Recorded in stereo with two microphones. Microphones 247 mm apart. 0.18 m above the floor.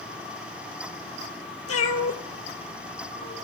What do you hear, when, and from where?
1.7 s a cat meowing: 60° left (ahead or behind), 0.6 m; by 3.3 s 30° left (ahead or behind), 1.7 m